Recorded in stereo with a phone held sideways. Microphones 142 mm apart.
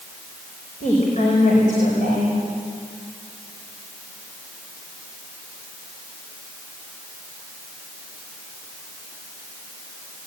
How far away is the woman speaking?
About 5.5 m.